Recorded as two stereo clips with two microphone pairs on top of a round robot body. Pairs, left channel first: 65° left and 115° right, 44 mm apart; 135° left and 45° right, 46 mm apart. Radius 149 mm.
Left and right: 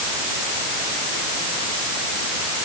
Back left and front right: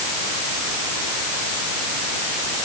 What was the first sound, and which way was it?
Only background noise.